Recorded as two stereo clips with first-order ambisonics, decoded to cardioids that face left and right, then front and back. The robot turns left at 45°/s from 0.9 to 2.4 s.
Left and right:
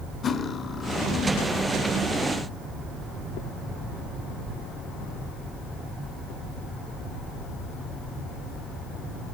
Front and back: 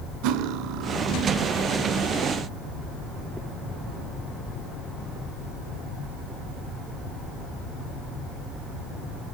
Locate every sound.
0.2 s cutlery clinking: 155° left, 0.8 m; by 1.6 s 125° left, 0.8 m